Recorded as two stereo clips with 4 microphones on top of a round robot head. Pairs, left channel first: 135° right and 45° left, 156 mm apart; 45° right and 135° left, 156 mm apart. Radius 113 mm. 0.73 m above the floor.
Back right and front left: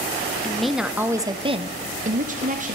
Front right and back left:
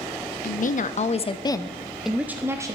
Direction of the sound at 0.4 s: 50° right.